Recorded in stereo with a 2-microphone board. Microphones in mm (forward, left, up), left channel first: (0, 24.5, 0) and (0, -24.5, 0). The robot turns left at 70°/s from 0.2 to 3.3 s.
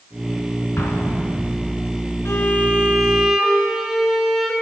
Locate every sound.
0.8 s an explosion: 85° left, 1.3 m; by 1.8 s 10° left, 1.3 m
2.2 s a violin: 70° left, 1.4 m; by 4.5 s straight ahead, 1.4 m